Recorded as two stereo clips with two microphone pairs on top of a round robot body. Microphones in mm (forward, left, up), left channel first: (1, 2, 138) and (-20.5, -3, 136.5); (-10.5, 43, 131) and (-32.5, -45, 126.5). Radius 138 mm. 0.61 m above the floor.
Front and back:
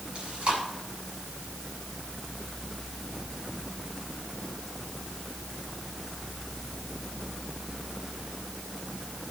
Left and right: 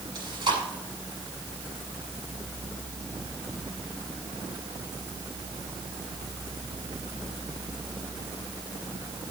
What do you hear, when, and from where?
0.1 s chewing: 140° right, 7 m